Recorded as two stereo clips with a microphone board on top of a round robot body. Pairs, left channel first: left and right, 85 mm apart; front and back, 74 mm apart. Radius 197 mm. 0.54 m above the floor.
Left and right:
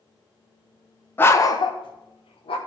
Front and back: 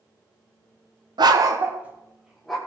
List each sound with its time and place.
1.2 s a dog barking: 160° left, 0.8 m; by 2.6 s 90° left, 1.4 m